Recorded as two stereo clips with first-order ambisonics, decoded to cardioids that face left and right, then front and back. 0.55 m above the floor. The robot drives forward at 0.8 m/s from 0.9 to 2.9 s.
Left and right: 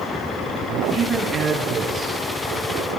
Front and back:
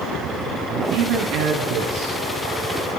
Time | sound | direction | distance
0.7 | a man speaking | 160° right | 6 m